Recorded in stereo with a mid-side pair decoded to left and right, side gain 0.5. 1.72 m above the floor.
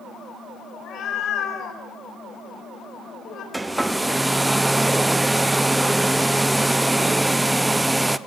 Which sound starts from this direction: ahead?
A hair dryer, at 3.5 s.